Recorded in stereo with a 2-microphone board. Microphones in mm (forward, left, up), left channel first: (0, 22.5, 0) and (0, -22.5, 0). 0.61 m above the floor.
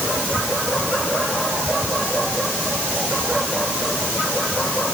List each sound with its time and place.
Only background noise.